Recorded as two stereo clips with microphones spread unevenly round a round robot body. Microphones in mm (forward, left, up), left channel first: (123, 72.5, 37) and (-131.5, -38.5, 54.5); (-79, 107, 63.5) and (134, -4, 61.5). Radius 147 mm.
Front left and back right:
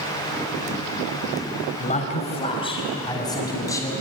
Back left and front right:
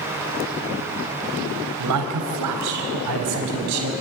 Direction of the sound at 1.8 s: 45° right.